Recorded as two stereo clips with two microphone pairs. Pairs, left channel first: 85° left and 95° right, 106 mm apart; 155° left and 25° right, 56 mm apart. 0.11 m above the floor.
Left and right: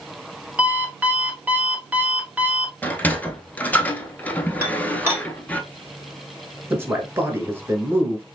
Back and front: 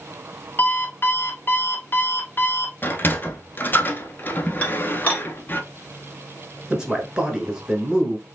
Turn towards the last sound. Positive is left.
turn(degrees=-85)